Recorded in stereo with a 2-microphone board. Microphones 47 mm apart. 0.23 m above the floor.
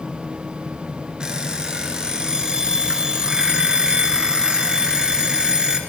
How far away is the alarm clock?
About 2.5 m.